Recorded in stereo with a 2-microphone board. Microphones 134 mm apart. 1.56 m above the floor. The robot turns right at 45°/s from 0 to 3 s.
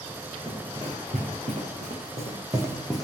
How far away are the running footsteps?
About 6 m.